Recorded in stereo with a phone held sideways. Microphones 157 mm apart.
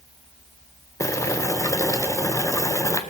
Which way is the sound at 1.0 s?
20° left (ahead or behind).